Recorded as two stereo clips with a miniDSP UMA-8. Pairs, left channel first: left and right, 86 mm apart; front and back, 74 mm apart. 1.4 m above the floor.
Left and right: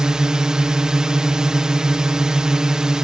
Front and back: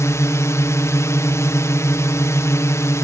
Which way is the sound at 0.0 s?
10° right.